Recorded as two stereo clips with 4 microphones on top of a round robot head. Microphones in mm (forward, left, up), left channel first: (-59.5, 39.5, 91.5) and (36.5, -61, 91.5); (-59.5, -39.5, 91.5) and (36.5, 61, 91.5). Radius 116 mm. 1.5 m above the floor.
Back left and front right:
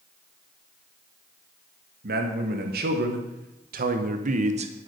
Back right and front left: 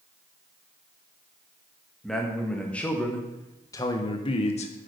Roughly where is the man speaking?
Ahead right.